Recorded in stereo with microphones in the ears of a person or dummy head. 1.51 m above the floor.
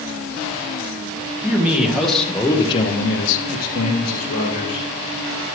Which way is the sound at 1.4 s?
10° right (ahead or behind).